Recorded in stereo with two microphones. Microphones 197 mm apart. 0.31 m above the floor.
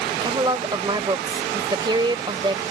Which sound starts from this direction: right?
A woman speaking, at 0.2 s.